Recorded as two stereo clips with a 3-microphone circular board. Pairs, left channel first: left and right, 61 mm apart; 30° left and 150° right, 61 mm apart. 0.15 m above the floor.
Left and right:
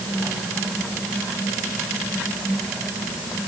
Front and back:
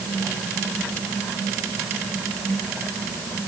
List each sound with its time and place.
Only background noise.